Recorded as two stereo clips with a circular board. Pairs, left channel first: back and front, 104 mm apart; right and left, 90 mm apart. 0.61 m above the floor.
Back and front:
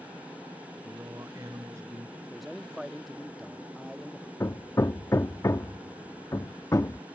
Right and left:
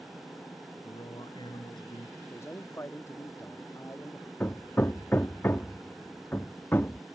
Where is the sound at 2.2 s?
85° right.